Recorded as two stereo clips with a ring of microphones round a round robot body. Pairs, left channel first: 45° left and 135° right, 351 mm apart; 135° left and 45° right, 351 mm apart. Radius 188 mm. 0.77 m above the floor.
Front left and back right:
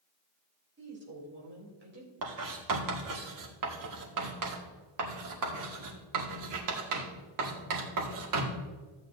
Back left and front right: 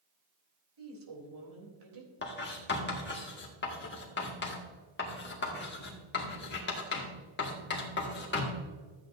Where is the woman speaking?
75° right, 3.5 m.